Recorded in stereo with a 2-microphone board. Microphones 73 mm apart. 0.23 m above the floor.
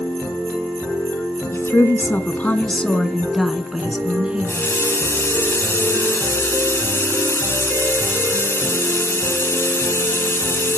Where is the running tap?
35° left (ahead or behind), 1.7 m.